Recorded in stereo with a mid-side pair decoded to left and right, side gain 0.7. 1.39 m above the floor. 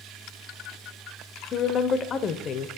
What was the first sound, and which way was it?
A woman speaking, 35° left.